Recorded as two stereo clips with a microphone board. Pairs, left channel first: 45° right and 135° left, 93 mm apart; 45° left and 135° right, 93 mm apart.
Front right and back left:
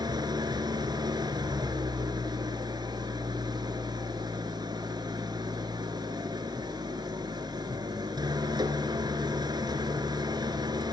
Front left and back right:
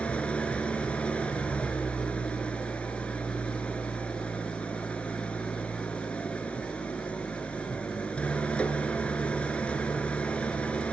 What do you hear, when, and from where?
0.0 s an engine running: 120° left, 2 m